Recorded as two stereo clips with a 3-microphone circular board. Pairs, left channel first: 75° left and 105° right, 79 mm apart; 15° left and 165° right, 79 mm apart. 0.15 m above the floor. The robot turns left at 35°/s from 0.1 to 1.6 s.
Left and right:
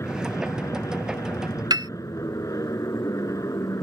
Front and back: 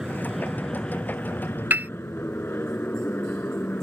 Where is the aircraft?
115° left; by 3.9 s 70° left.